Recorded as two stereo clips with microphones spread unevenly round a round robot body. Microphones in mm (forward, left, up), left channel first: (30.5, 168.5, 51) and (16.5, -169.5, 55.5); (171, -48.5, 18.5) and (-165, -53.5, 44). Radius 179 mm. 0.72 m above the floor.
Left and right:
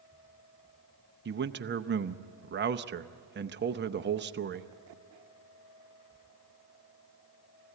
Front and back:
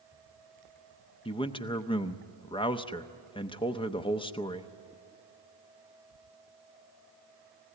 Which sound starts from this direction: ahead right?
A man speaking, at 1.2 s.